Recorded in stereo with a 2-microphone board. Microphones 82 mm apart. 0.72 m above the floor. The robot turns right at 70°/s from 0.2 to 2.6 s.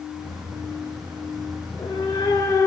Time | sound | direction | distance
1.6 | a cat meowing | 70° left | 0.9 m